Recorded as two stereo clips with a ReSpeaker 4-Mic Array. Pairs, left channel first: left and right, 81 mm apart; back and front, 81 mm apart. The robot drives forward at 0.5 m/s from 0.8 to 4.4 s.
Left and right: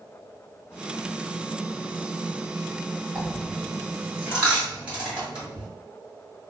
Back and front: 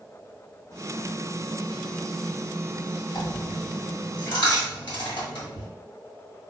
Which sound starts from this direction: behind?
A dropped coin, at 3.1 s.